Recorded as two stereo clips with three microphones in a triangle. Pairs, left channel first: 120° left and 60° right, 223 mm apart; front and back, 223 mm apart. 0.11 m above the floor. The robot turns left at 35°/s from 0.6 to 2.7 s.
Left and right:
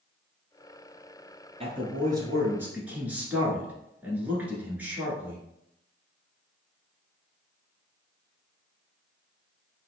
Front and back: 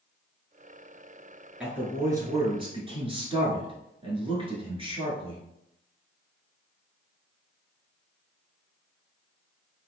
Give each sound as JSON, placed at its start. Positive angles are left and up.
{"t": 1.6, "sound": "a man speaking", "azimuth_deg": -100, "distance_m": 1.4}